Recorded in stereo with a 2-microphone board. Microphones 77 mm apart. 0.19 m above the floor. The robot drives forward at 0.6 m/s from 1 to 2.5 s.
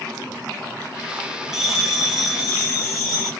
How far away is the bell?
About 1.1 m.